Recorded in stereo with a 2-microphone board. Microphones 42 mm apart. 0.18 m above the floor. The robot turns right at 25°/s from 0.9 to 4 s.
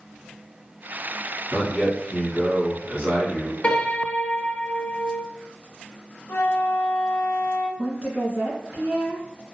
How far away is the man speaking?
About 1.5 m.